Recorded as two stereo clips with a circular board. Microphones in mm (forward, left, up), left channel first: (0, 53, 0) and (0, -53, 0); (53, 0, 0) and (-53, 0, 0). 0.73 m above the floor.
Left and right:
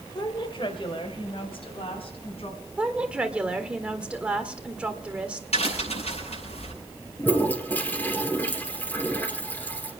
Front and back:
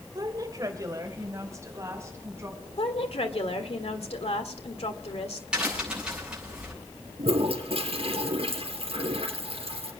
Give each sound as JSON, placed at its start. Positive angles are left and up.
{"t": 0.1, "sound": "a woman speaking", "azimuth_deg": 130, "distance_m": 2.0}
{"t": 2.8, "sound": "a woman speaking", "azimuth_deg": -10, "distance_m": 1.7}
{"t": 5.5, "sound": "a crack", "azimuth_deg": 100, "distance_m": 7.5}
{"t": 7.2, "sound": "a toilet flushing", "azimuth_deg": 160, "distance_m": 3.0}